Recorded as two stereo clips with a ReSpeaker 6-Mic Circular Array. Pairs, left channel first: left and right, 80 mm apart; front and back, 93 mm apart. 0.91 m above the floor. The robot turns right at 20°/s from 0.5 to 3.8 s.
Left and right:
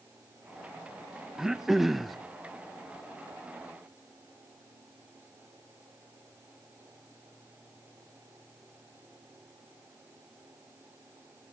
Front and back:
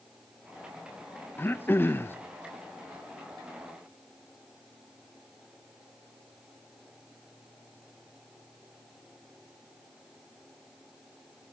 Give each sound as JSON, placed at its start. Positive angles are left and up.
{"t": 1.4, "sound": "throat clearing", "azimuth_deg": -15, "distance_m": 0.7}